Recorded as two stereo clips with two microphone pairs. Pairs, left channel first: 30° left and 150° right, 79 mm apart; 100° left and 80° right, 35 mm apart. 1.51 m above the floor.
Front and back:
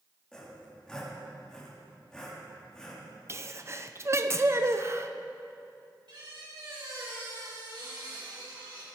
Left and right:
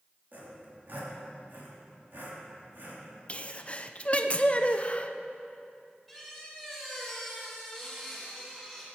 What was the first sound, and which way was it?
Sawing, 55° right.